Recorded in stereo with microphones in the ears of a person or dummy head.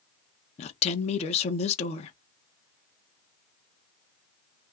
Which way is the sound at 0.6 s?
35° left (ahead or behind).